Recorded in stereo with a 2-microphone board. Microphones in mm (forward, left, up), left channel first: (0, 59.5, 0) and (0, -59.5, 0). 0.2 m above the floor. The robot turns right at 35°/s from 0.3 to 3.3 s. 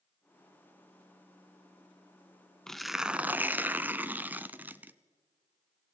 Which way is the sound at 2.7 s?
5° left (ahead or behind).